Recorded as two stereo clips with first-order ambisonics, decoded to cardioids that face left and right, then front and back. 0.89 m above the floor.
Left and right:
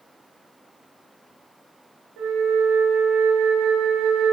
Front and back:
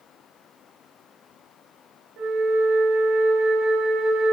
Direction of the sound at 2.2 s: 125° right.